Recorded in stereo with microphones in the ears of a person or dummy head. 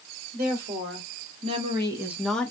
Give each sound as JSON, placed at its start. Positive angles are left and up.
{"t": 0.3, "sound": "a woman speaking", "side_deg": -45, "distance_m": 1.6}